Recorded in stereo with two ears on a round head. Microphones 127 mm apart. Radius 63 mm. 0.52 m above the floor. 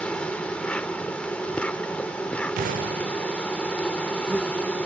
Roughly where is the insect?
Centre.